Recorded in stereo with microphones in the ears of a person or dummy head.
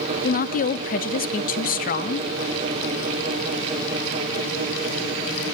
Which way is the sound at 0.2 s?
40° left (ahead or behind).